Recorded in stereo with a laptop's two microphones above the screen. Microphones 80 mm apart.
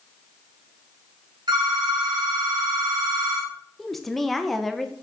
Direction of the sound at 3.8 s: Centre (ahead or behind).